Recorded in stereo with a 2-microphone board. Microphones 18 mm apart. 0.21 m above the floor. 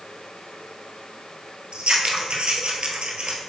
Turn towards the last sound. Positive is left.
turn(degrees=-80)